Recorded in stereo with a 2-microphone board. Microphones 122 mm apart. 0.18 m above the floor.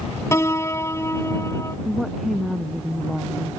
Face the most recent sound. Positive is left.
turn(degrees=0)  # may be behind; listen again after turning